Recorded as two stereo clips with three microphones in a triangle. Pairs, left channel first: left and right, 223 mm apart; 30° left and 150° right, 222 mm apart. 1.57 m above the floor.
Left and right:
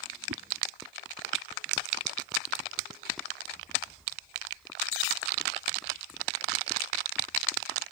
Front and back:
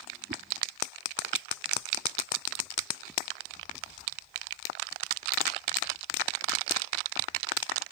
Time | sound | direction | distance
0.3 | a whoosh | 100° right | ?